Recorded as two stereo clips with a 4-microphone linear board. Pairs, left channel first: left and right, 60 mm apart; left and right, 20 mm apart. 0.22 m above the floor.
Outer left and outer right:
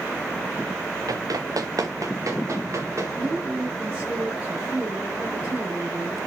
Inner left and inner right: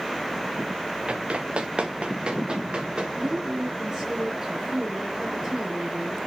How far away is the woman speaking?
About 3 m.